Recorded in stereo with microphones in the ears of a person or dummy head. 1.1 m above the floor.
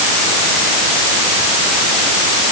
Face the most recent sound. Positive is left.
No sound to turn to.